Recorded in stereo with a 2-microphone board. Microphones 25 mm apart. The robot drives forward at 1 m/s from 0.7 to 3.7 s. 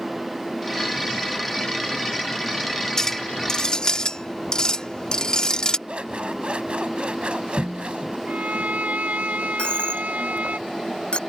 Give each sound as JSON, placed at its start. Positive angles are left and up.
{"t": 3.0, "sound": "a clink", "side_deg": 20}
{"t": 5.9, "sound": "scissors", "side_deg": -45}
{"t": 8.3, "sound": "a violin", "side_deg": -80}
{"t": 9.6, "sound": "a dropped coin", "side_deg": 40}